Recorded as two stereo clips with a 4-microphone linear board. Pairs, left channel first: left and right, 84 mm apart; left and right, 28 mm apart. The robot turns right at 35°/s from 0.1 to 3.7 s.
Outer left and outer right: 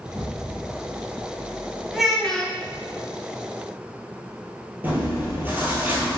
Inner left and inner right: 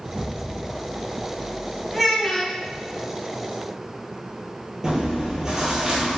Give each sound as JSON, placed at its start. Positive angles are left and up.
{"t": 0.1, "sound": "an explosion", "side_deg": 0, "distance_m": 0.8}
{"t": 1.9, "sound": "a child speaking", "side_deg": -5, "distance_m": 1.1}
{"t": 4.8, "sound": "chewing", "side_deg": -25, "distance_m": 1.5}